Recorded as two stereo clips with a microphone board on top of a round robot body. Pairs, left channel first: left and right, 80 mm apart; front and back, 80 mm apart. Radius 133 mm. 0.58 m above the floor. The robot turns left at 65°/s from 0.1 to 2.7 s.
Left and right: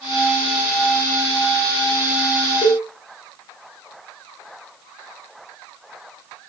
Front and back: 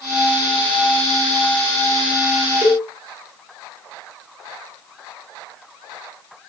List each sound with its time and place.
2.6 s a cowbell: 80° left, 0.6 m; by 2.9 s 75° left, 0.6 m